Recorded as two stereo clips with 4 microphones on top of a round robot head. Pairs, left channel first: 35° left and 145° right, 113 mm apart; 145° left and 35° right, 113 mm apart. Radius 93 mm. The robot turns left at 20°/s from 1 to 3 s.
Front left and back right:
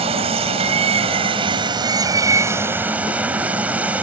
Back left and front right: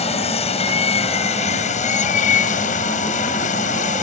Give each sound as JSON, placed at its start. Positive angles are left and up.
{"t": 0.0, "sound": "running water", "azimuth_deg": 175}